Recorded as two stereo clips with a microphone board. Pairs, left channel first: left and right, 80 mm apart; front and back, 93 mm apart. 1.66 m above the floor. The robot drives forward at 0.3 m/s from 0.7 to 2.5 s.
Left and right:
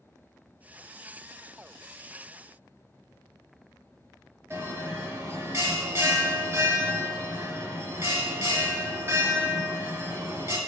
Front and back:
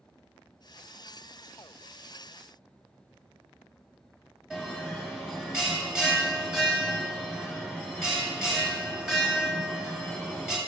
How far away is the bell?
About 1.4 m.